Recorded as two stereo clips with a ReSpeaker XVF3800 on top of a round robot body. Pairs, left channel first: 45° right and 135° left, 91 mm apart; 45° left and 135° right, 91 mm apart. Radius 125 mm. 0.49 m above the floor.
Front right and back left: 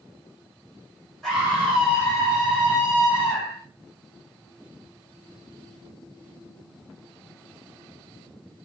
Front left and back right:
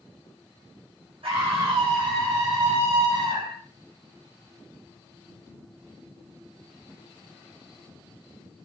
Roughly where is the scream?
Behind right.